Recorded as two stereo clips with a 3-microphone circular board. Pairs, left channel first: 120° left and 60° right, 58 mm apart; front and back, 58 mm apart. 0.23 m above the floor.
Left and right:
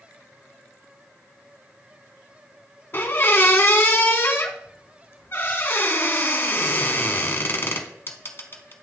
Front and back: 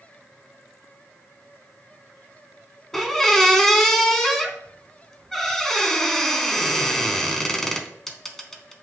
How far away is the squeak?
About 0.8 m.